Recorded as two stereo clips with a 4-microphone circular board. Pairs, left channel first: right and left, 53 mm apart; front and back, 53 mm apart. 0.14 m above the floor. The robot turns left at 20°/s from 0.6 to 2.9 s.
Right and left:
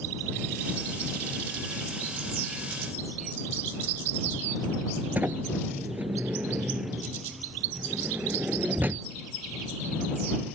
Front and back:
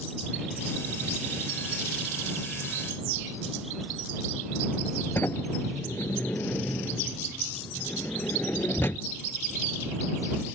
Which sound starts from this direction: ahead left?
A sliding door, at 5.2 s.